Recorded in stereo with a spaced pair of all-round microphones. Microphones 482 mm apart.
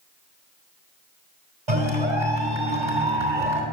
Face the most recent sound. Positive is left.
turn(degrees=-70)  # may be behind; listen again after turning